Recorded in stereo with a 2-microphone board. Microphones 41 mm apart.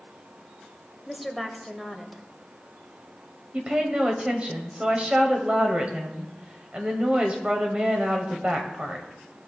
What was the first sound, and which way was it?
A woman speaking, centre (ahead or behind).